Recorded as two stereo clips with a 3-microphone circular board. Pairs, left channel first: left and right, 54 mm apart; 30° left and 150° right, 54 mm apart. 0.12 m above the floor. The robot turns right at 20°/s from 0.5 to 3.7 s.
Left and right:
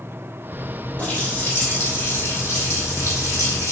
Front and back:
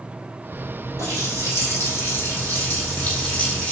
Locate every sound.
1.0 s a running tap: 30° left, 2.5 m; by 3.7 s 85° left, 2.5 m